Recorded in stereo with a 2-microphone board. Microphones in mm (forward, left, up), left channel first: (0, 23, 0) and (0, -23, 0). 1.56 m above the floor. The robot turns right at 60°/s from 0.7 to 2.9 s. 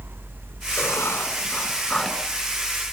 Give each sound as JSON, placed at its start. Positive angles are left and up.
{"t": 0.8, "sound": "writing", "azimuth_deg": 95, "distance_m": 4.0}